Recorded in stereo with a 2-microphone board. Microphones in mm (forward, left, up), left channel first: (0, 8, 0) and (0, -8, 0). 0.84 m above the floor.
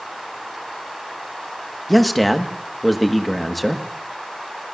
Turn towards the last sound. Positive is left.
turn(degrees=0)  # may be behind; listen again after turning